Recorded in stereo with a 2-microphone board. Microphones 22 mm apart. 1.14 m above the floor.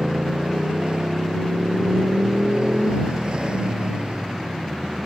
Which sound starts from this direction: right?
A motorcycle, at 0.0 s.